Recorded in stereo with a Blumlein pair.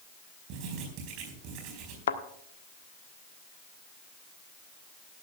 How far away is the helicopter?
I don't hear a helicopter.